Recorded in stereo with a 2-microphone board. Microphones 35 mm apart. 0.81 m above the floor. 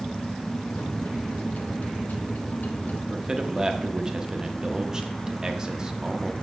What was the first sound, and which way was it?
A microwave, 60° left (ahead or behind).